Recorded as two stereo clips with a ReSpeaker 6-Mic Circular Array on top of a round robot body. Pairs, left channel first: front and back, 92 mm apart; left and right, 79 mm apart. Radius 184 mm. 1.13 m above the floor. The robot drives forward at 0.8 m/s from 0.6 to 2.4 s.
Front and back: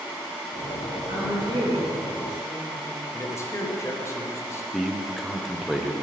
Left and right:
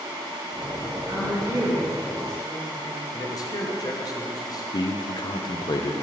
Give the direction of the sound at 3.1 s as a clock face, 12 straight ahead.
10 o'clock.